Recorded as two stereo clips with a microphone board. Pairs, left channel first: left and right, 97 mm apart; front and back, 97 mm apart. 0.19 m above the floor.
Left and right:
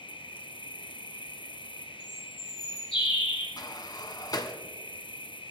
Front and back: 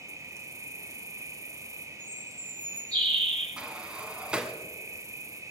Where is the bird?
80° left, 7.5 m.